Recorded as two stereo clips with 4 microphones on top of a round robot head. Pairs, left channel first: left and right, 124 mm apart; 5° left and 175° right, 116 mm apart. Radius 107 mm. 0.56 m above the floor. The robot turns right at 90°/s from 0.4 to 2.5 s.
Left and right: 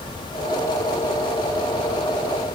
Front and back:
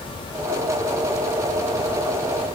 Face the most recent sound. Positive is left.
No sound to turn to.